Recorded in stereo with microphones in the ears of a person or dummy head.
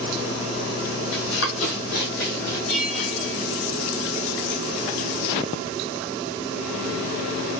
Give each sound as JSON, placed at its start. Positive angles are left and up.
{"t": 1.1, "sound": "running footsteps", "side_deg": 55, "distance_m": 3.0}
{"t": 2.7, "sound": "a bell", "side_deg": 65, "distance_m": 2.5}